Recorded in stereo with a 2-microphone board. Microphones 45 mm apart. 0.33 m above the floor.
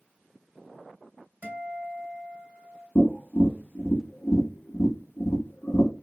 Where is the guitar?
40° right (ahead or behind), 1.7 m.